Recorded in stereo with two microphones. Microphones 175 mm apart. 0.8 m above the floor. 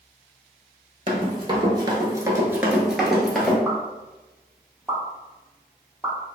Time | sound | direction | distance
1.1 | running footsteps | 30° right (ahead or behind) | 1.0 m
3.6 | a pop | 15° right (ahead or behind) | 0.7 m